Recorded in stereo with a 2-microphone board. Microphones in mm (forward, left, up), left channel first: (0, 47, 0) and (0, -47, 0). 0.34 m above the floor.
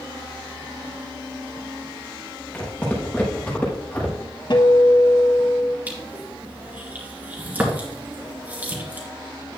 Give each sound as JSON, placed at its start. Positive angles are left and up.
{"t": 2.5, "sound": "footsteps", "side_deg": 15, "distance_m": 5.0}
{"t": 4.5, "sound": "a guitar", "side_deg": 50, "distance_m": 1.4}
{"t": 5.9, "sound": "crushing", "side_deg": -15, "distance_m": 2.5}